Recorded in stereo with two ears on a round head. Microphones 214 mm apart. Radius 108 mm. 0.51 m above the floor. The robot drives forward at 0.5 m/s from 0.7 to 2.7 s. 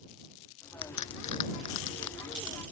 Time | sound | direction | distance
0.8 | a crack | 85° left | ?